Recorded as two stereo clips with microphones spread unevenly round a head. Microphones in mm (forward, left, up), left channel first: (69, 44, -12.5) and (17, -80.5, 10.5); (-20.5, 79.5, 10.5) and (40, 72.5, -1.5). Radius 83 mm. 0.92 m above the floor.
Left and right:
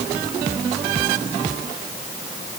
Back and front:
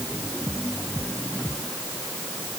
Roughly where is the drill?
I don't hear a drill.